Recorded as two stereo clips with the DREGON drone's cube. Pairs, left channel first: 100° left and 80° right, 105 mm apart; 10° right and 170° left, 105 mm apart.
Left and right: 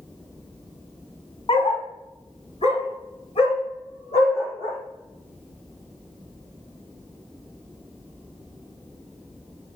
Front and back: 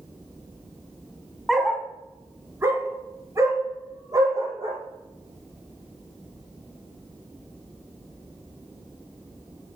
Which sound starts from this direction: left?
A dog barking, at 1.5 s.